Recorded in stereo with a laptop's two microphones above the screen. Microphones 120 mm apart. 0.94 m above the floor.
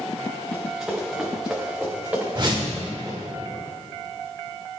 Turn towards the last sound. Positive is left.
turn(degrees=-40)  # may be behind; listen again after turning